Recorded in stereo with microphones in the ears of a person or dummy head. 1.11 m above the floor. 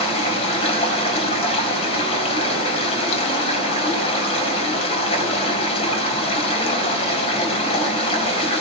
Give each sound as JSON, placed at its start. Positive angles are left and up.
{"t": 0.0, "sound": "running water", "side_deg": 35, "distance_m": 5.5}